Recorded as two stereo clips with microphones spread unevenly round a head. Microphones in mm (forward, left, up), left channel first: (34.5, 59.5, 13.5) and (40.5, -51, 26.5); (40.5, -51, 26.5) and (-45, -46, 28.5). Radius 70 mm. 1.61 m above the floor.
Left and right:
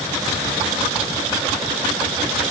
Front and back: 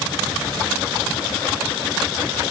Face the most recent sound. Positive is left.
No sound to turn to.